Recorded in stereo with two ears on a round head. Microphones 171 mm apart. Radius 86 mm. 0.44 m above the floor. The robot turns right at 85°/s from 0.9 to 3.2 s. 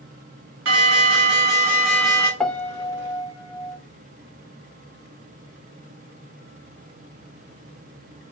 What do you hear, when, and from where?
0.7 s an alarm: 95° right, 3 m; by 2.3 s 25° left, 3 m
2.4 s a piano: 5° left (ahead or behind), 0.5 m; by 3.8 s 20° left (ahead or behind), 0.5 m